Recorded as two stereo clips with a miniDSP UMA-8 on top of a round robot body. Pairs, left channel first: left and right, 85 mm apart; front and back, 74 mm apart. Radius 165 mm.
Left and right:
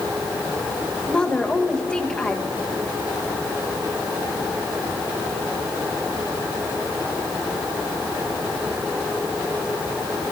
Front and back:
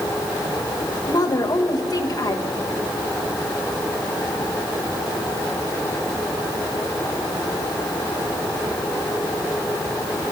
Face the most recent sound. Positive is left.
turn(degrees=15)